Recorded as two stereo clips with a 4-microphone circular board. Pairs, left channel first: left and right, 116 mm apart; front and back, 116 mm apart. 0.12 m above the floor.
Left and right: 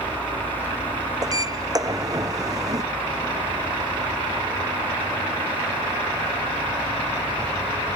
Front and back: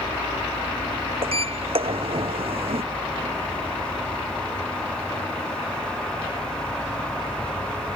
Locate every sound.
1.2 s a sliding door: 145° right